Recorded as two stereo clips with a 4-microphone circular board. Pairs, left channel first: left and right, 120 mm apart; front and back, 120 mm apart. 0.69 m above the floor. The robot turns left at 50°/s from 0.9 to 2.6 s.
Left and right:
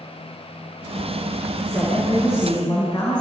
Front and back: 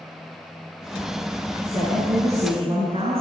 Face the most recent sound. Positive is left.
turn(degrees=145)